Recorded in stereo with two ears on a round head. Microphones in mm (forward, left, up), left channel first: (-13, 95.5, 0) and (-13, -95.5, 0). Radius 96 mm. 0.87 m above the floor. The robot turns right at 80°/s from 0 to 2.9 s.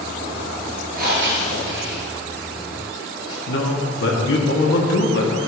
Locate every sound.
0.9 s breathing: 45° right (ahead or behind), 2 m; by 3.4 s 25° left (ahead or behind), 2 m
3.5 s a man speaking: 65° left (ahead or behind), 1.6 m